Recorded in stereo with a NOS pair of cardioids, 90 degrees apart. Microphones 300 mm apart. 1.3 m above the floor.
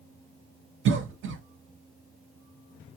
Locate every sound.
0.8 s a cough: 45° right, 0.8 m